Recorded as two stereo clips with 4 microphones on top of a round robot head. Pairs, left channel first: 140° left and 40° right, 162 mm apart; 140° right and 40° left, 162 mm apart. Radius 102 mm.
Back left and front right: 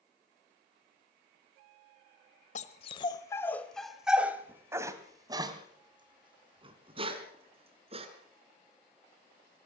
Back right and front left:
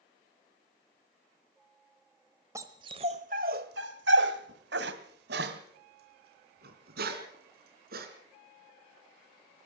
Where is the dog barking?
110° left, 1.1 m; by 8.1 s 15° left, 3.5 m.